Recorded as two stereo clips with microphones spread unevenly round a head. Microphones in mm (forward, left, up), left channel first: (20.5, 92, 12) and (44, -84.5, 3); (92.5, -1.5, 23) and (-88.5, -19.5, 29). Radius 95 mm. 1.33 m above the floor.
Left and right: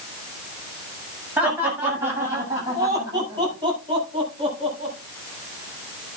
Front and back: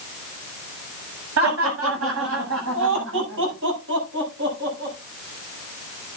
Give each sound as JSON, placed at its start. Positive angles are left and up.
{"t": 1.4, "sound": "laughter", "azimuth_deg": -165, "distance_m": 8.0}